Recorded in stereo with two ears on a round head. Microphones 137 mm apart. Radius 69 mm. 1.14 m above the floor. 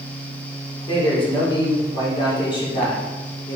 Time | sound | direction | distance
0.9 | a man speaking | 35° left (ahead or behind) | 3 m